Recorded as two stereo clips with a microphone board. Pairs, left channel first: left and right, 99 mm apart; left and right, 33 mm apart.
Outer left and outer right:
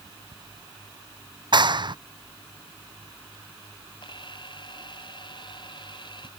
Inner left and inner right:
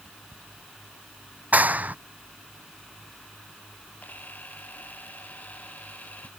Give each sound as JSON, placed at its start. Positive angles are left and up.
{"t": 1.5, "sound": "a clap", "side_deg": -50}
{"t": 4.0, "sound": "a camera shutter", "side_deg": 50}